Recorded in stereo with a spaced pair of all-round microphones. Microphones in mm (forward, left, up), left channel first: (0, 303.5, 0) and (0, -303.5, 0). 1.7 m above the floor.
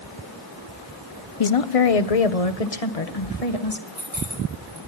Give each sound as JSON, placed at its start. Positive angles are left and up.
{"t": 1.4, "sound": "a woman speaking", "side_deg": 60, "distance_m": 0.8}
{"t": 3.9, "sound": "keys jangling", "side_deg": -60, "distance_m": 9.5}